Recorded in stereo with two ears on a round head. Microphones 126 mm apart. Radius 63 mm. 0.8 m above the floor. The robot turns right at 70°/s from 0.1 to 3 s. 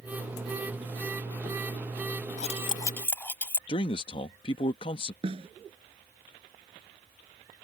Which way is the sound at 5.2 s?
45° right (ahead or behind).